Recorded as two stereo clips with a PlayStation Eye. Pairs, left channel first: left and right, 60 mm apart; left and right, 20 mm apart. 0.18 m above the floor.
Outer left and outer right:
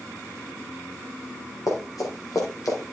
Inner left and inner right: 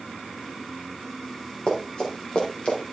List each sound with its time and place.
1.7 s running footsteps: 70° left (ahead or behind), 4.5 m; by 2.9 s 80° left, 5 m